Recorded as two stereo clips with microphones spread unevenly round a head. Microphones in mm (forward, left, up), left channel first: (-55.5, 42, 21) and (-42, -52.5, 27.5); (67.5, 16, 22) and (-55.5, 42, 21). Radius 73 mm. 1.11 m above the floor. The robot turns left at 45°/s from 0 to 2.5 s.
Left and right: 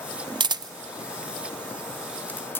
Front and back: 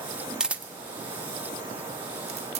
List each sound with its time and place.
0.4 s a camera shutter: 110° right, 0.6 m; by 2.6 s 155° left, 0.6 m